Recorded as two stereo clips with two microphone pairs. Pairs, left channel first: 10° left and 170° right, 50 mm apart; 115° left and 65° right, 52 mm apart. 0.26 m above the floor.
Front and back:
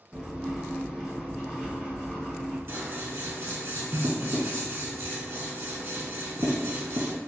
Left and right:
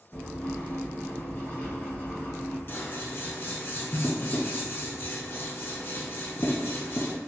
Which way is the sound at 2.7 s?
155° left.